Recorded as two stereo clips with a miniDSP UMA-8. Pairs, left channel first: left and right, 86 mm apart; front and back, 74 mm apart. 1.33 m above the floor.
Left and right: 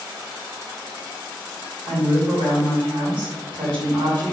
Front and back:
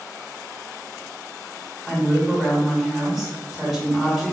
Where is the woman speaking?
90° right, 1.4 m.